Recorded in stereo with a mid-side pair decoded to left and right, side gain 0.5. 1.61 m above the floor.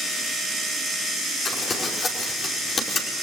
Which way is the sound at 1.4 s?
40° left.